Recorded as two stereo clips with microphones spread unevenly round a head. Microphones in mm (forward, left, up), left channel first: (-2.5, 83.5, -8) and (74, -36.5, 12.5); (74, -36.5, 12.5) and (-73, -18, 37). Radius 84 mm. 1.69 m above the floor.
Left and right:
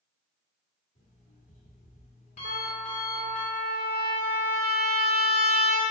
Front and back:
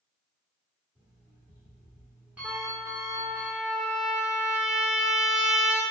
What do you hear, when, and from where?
0.9 s an alarm clock: 100° left, 1.9 m
2.4 s a trumpet: 100° right, 0.6 m